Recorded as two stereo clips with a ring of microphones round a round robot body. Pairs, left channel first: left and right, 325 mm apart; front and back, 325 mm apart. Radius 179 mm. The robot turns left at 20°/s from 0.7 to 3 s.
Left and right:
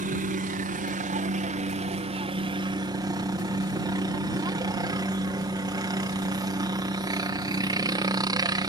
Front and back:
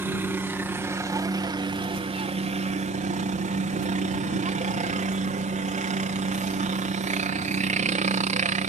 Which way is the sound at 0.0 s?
105° right.